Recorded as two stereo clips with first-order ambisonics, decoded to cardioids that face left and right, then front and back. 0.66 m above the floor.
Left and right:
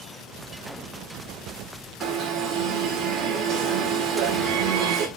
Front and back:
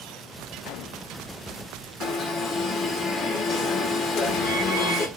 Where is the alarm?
55° right, 1.6 m.